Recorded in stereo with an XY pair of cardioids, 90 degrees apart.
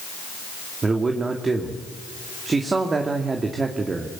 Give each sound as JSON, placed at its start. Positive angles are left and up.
{"t": 0.8, "sound": "a man speaking", "azimuth_deg": -35, "distance_m": 2.5}